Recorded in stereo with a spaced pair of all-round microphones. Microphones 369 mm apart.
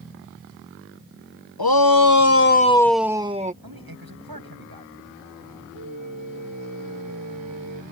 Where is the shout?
80° left; by 3.5 s 20° right (ahead or behind).